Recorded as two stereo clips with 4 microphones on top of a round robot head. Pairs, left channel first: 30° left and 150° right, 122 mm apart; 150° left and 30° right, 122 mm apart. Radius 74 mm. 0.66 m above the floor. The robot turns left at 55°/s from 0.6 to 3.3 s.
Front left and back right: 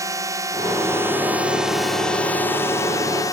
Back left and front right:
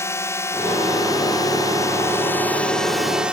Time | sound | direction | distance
0.0 | a drone | 170° right | ?